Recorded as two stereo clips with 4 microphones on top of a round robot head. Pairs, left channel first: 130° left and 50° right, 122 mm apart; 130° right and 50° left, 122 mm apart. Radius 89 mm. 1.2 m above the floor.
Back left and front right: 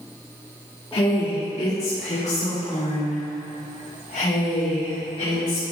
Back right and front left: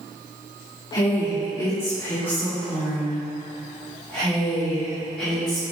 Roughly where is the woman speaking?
Behind.